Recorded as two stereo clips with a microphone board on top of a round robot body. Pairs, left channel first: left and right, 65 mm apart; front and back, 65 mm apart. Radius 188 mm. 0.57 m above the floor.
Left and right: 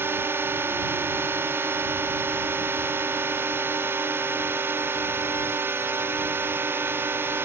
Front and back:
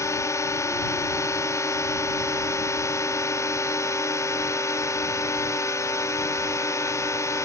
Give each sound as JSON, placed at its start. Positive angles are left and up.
{"t": 0.0, "sound": "a drone", "azimuth_deg": -35}